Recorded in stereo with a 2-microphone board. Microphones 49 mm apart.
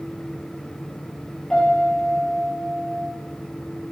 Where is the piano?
15° left (ahead or behind), 8.5 m.